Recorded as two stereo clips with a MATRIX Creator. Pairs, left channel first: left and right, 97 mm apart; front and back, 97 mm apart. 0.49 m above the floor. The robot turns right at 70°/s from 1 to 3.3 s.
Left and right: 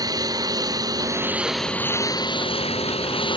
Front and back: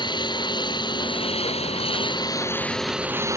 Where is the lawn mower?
40° right; by 3.4 s 120° left.